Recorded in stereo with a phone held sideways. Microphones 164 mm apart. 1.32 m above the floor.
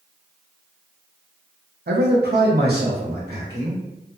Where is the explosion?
I don't hear an explosion.